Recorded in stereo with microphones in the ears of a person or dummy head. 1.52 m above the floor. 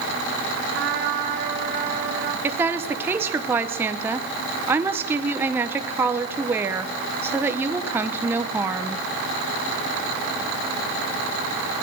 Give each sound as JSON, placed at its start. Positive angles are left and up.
{"t": 0.7, "sound": "a trumpet", "side_deg": -70, "distance_m": 2.5}
{"t": 2.4, "sound": "a woman speaking", "side_deg": -15, "distance_m": 1.0}